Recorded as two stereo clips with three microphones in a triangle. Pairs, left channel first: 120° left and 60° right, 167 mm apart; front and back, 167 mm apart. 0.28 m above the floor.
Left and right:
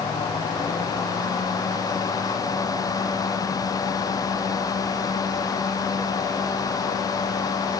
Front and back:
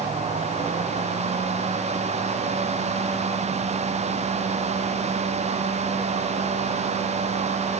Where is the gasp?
I don't hear a gasp.